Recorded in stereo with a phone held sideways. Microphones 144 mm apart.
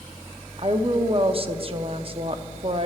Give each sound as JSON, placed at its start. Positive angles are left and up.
{"t": 0.6, "sound": "a woman speaking", "side_deg": -40, "distance_m": 0.7}